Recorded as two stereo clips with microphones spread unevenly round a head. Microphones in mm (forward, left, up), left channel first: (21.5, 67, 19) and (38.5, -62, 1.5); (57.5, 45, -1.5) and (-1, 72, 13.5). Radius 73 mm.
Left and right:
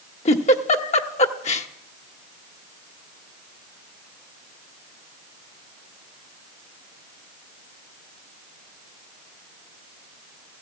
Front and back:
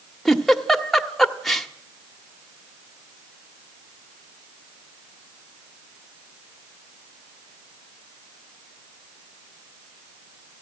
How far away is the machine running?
I don't hear a machine running.